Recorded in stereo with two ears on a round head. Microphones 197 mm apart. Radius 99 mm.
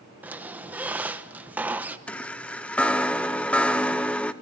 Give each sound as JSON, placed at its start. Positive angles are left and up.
{"t": 0.2, "sound": "a squeak", "side_deg": -5, "distance_m": 0.9}
{"t": 2.1, "sound": "a chime", "side_deg": 5, "distance_m": 0.7}